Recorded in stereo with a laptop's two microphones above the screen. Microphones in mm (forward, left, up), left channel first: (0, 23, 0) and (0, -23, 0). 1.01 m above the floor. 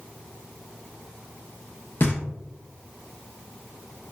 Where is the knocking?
45° left (ahead or behind), 0.7 m.